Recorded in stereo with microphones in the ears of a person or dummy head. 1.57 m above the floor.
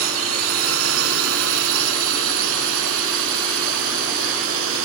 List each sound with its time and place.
0.0 s a drone: 80° right; by 4.9 s 75° right (ahead or behind)